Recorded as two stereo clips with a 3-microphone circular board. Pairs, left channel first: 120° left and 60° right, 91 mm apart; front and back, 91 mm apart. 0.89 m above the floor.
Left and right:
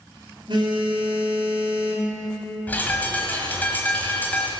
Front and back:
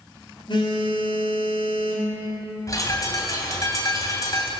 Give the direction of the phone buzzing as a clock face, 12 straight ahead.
1 o'clock.